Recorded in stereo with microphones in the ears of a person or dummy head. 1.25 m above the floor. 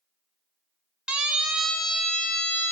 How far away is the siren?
About 2.5 m.